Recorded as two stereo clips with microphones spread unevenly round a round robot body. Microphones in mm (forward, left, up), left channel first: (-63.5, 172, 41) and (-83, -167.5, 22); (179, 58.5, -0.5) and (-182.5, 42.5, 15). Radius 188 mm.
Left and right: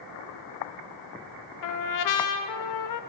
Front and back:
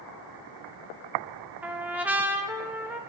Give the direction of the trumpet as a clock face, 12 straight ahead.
9 o'clock.